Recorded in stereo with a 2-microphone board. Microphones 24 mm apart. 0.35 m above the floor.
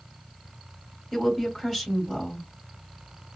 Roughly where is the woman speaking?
Centre.